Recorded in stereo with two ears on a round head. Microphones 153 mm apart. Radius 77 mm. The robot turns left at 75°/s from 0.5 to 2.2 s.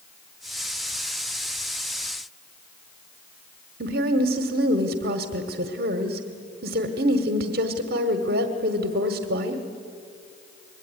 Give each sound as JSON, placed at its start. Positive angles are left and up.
{"t": 3.8, "sound": "a woman speaking", "side_deg": -60, "distance_m": 1.6}